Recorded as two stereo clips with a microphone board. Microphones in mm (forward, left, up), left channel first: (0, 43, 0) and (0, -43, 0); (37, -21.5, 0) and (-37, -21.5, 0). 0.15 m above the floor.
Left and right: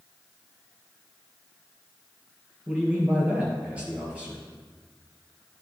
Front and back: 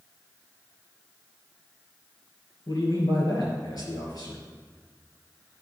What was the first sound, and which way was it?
A man speaking, 15° right.